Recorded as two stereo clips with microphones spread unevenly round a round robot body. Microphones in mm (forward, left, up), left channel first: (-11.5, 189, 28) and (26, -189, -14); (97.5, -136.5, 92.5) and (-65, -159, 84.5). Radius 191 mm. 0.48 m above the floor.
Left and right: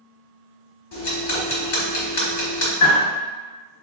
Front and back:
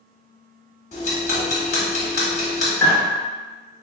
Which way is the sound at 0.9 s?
50° left.